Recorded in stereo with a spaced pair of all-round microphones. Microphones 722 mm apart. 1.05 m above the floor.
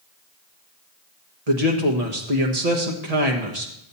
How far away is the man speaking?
About 1.5 m.